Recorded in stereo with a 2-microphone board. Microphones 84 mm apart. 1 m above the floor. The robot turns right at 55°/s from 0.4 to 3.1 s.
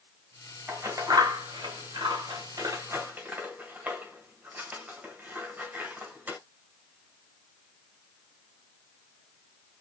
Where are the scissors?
25° right (ahead or behind), 1.8 m; by 6.4 s 20° right (ahead or behind), 1.8 m.